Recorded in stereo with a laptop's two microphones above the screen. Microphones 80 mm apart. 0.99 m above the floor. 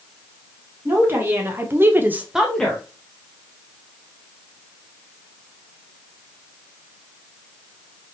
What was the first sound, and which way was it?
A woman speaking, 25° right (ahead or behind).